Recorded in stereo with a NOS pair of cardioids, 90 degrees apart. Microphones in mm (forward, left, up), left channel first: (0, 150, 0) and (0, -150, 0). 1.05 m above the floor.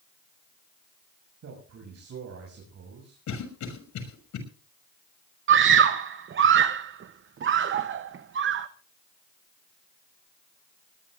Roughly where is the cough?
Left.